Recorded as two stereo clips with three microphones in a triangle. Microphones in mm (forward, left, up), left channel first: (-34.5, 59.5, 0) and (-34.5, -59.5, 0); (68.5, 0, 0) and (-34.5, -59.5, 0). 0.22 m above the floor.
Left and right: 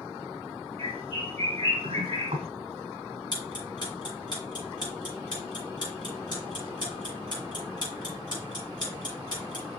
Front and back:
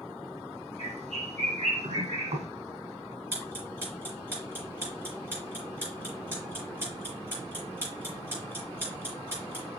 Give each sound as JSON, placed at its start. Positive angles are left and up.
{"t": 0.8, "sound": "a bird", "azimuth_deg": -130, "distance_m": 2.5}
{"t": 3.3, "sound": "ticking", "azimuth_deg": 140, "distance_m": 5.0}